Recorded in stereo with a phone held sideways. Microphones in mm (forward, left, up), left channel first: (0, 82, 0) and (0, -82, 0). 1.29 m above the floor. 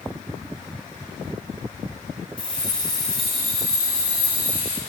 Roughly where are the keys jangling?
Centre.